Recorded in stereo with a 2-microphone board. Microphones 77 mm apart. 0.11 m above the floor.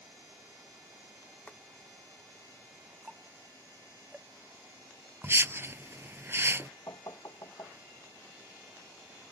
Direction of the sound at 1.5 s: 20° left (ahead or behind).